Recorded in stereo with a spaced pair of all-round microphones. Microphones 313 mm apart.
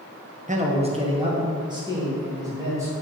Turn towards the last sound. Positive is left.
turn(degrees=-10)  # may be behind; listen again after turning